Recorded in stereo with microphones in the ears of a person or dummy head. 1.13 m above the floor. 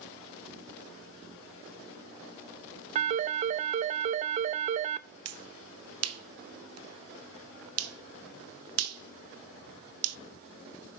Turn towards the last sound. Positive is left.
turn(degrees=-80)